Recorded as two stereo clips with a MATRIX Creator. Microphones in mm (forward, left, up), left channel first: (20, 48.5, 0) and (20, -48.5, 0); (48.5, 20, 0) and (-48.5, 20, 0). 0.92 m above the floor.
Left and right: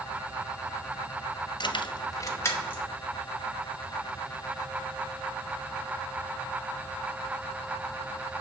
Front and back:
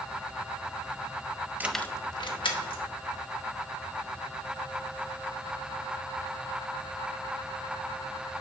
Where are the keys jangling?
110° left, 0.5 m; by 2.8 s 20° left, 1.6 m.